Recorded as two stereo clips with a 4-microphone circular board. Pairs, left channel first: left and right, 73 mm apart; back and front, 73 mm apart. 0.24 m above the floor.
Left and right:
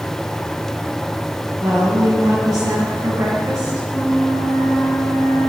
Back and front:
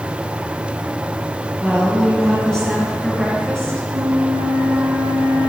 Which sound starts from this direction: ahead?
A flute, at 3.9 s.